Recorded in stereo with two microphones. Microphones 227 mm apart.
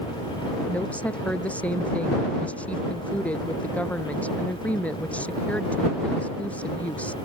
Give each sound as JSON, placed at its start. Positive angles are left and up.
{"t": 0.7, "sound": "a woman speaking", "side_deg": 5}